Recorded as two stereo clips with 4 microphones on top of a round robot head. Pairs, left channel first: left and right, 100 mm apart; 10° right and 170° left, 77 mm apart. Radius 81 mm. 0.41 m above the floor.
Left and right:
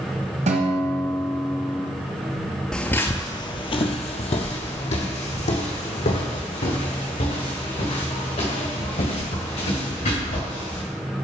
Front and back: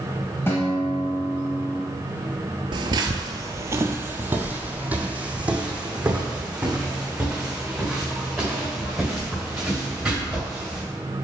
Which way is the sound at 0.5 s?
80° right.